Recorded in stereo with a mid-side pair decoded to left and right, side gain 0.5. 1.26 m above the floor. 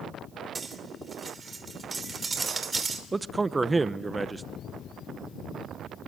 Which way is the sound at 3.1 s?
20° right.